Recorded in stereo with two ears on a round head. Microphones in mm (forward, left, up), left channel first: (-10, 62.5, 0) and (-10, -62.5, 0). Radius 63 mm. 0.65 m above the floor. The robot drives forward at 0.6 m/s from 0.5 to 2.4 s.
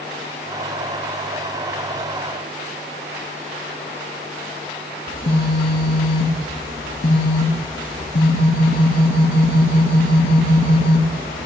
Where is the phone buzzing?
85° left, 2.5 m.